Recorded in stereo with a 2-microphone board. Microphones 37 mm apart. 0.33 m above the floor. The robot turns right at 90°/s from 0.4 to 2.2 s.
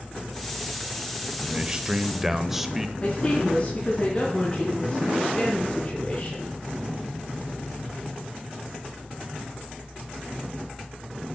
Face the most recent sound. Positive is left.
turn(degrees=25)  # may be behind; listen again after turning